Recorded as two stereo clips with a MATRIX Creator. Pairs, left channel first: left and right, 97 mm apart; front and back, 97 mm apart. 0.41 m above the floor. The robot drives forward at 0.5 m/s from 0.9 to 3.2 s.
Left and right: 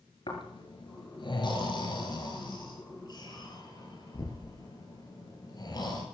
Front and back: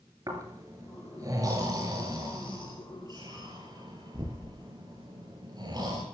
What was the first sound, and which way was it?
Snoring, 125° left.